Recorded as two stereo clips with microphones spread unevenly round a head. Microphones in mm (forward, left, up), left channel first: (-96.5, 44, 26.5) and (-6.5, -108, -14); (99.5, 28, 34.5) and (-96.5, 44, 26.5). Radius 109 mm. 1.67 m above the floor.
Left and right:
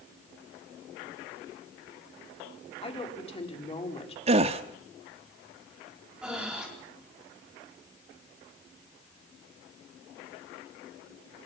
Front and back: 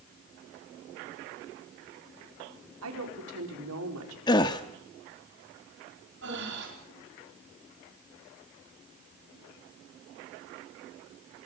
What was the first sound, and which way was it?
A woman speaking, 175° left.